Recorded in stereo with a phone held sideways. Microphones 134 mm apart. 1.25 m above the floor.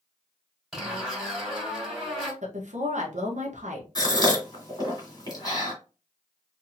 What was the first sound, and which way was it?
A zipper, centre (ahead or behind).